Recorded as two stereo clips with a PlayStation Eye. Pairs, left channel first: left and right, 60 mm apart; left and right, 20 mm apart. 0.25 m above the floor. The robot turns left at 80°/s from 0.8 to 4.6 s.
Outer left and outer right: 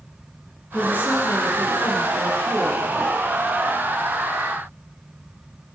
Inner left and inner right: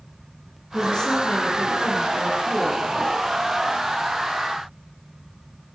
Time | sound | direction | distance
0.7 | a woman speaking | 155° left | 3.5 m